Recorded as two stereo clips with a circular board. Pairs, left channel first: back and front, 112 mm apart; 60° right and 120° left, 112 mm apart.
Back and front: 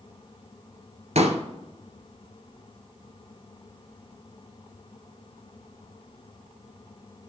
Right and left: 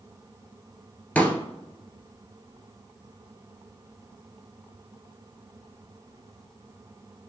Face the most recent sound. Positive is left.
turn(degrees=15)